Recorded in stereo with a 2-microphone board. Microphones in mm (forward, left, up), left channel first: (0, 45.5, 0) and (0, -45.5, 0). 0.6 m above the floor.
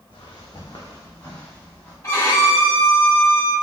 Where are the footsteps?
65° left (ahead or behind), 1.5 m; by 1.9 s 20° left (ahead or behind), 2.5 m.